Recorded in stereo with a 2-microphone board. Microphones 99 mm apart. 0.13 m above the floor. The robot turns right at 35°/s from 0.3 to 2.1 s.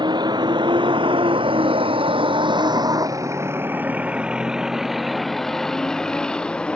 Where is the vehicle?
55° right (ahead or behind); by 6.8 s 10° left (ahead or behind).